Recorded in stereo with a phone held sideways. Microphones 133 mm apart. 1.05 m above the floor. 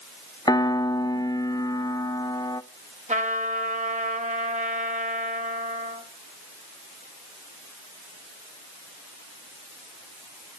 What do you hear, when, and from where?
0.5 s a piano: 30° left (ahead or behind), 0.6 m
3.1 s a trumpet: 65° right (ahead or behind), 1.9 m